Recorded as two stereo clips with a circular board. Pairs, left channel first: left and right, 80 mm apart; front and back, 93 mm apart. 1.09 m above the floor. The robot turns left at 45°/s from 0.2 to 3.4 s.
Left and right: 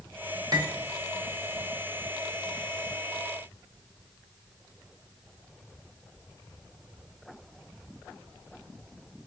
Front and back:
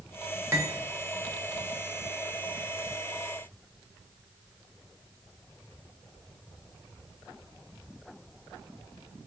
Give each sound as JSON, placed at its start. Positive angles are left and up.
{"t": 0.5, "sound": "cutlery clinking", "azimuth_deg": -120, "distance_m": 0.9}